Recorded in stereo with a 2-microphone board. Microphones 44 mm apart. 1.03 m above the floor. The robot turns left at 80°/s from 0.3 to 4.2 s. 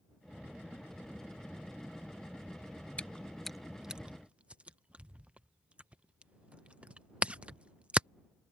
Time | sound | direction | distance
3.0 | chewing | 30° left (ahead or behind) | ?